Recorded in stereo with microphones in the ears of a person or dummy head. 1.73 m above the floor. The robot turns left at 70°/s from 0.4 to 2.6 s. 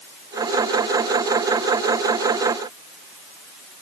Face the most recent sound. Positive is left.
No sound to turn to.